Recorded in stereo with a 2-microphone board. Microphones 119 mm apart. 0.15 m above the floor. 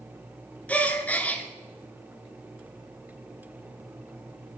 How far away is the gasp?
About 1.9 m.